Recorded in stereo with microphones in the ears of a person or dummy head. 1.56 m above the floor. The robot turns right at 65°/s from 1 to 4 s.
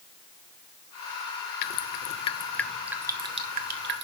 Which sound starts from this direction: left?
Dripping, at 1.6 s.